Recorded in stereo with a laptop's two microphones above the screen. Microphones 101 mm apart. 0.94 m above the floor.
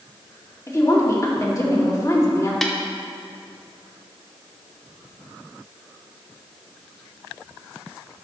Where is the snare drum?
Centre (ahead or behind), 1.1 m.